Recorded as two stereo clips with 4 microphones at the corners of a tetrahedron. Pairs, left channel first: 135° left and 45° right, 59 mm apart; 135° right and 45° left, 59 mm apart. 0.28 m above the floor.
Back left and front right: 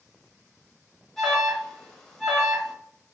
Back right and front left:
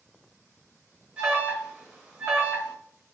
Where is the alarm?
65° left, 0.9 m.